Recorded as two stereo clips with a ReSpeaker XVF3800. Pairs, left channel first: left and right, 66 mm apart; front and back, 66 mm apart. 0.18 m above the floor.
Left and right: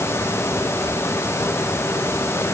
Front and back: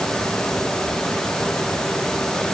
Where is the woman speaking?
No woman speaking in this recording.